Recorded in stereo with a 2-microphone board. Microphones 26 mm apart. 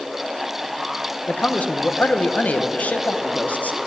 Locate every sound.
1.3 s a man speaking: 80° left, 1.0 m